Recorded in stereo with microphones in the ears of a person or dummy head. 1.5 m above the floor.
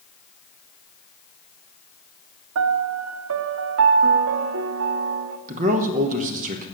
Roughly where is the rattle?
No rattle in this recording.